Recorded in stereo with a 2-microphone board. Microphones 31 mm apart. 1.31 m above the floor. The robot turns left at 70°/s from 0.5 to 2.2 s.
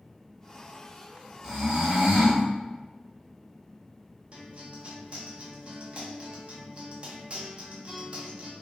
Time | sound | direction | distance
1.4 | snoring | 25° right | 2.0 m
4.3 | a guitar | 40° right (ahead or behind) | 0.8 m